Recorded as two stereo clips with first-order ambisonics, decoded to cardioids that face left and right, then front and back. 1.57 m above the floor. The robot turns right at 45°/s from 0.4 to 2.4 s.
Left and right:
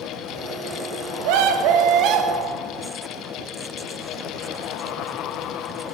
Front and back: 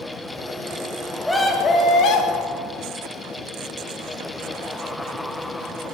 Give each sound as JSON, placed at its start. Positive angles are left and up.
{"t": 1.2, "sound": "a scream", "azimuth_deg": -85, "distance_m": 1.8}